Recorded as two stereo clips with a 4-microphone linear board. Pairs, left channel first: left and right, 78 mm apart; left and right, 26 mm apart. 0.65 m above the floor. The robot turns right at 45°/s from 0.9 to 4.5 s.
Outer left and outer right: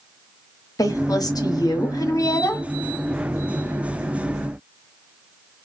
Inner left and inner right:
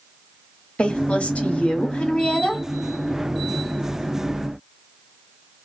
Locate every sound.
0.8 s a woman speaking: 65° left, 1.0 m; by 2.7 s 145° left, 1.0 m